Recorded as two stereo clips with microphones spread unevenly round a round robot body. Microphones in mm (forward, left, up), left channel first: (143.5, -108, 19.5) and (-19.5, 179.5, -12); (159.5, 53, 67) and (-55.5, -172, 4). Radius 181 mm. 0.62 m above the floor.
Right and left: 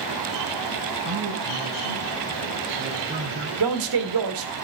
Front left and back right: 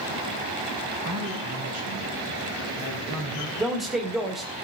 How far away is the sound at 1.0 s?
About 7.5 m.